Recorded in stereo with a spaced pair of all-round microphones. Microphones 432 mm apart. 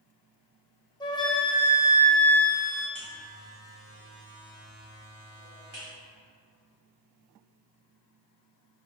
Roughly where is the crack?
No crack in this recording.